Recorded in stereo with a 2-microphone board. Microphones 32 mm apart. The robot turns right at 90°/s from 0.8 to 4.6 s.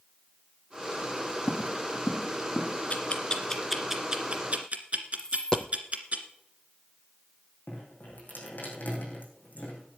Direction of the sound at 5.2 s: 20° left (ahead or behind).